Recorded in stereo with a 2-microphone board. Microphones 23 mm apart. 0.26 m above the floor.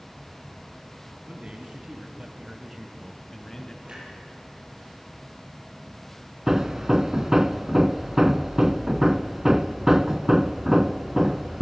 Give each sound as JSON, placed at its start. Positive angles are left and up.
{"t": 1.3, "sound": "a man speaking", "side_deg": -55, "distance_m": 2.5}
{"t": 3.9, "sound": "a clunk", "side_deg": -55, "distance_m": 8.0}
{"t": 6.5, "sound": "hammering", "side_deg": -25, "distance_m": 0.6}